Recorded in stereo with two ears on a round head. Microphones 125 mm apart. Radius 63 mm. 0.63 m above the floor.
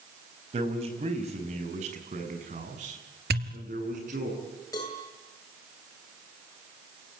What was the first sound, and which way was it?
A man speaking, 40° right (ahead or behind).